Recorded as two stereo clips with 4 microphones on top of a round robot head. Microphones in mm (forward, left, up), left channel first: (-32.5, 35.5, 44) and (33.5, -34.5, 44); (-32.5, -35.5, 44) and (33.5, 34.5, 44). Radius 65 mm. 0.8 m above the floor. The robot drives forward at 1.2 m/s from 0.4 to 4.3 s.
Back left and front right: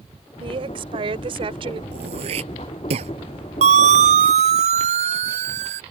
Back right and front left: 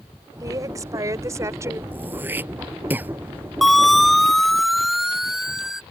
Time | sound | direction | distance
0.4 | a woman speaking | 10° right | ?
1.9 | throat clearing | 25° right | ?
3.6 | a siren | 40° right | ?